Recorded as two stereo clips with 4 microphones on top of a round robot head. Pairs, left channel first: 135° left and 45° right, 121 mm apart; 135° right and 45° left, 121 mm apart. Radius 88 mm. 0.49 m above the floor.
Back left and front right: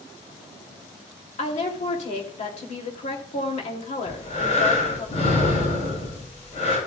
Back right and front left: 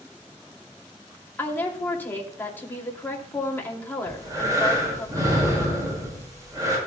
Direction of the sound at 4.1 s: 105° left.